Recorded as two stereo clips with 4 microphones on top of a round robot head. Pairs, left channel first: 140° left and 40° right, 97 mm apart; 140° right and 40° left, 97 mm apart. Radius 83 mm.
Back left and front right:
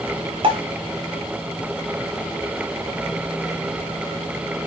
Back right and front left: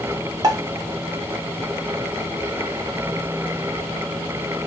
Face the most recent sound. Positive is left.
turn(degrees=-10)